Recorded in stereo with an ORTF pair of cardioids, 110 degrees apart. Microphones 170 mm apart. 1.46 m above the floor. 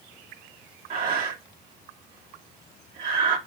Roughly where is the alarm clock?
I don't hear an alarm clock.